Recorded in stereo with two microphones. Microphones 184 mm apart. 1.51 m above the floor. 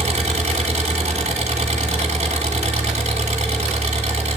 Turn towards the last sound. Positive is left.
turn(degrees=-35)  # may be behind; listen again after turning